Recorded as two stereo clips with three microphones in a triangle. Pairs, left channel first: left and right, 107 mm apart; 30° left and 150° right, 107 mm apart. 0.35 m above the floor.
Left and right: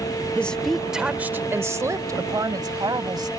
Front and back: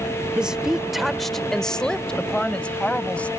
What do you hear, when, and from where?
0.3 s a woman speaking: 145° left; by 3.3 s 45° right